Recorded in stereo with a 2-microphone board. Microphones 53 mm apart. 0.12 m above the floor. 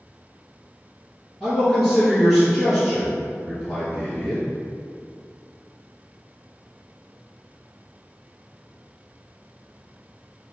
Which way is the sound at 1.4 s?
Centre (ahead or behind).